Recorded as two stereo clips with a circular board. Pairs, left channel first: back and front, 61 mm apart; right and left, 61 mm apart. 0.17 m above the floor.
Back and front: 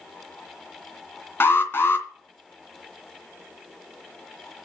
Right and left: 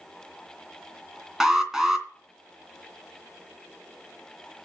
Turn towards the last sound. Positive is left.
turn(degrees=170)